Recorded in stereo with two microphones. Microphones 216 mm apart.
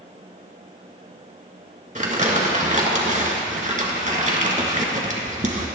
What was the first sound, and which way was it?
Crumpling, 35° right (ahead or behind).